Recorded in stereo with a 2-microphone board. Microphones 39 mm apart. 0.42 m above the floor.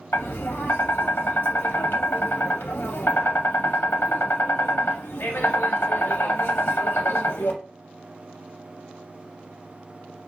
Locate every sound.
0.1 s tapping: 75° left (ahead or behind), 0.6 m